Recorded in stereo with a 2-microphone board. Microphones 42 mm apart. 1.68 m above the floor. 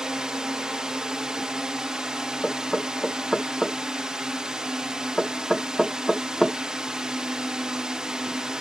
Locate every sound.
0.0 s a drone: 15° right (ahead or behind)
2.4 s knocking: centre (ahead or behind)